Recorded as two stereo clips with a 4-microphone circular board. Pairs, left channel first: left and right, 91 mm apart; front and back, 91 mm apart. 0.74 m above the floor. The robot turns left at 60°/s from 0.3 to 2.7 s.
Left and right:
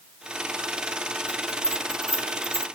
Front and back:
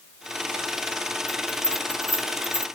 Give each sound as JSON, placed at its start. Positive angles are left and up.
{"t": 1.3, "sound": "a bell", "azimuth_deg": -75}